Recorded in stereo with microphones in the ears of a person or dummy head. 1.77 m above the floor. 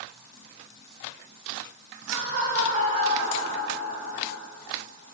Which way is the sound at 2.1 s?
75° right (ahead or behind).